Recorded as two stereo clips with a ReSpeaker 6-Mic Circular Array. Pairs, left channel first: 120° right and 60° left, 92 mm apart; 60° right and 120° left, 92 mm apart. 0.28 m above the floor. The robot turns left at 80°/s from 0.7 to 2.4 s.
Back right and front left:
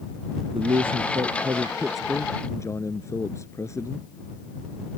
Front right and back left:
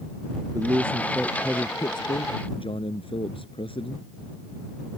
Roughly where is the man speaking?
Left.